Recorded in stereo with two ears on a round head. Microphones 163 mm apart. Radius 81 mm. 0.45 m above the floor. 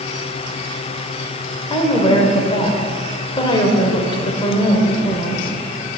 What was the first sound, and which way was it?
A woman speaking, 30° left (ahead or behind).